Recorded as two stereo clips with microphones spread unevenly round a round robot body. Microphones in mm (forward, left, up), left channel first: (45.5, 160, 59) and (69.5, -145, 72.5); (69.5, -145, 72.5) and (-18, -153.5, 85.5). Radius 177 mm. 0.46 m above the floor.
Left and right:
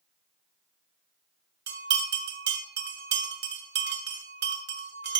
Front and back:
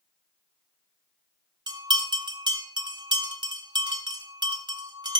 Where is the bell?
140° right, 1.7 m.